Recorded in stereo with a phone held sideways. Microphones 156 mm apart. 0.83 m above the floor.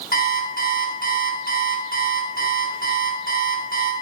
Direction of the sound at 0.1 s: 60° left (ahead or behind).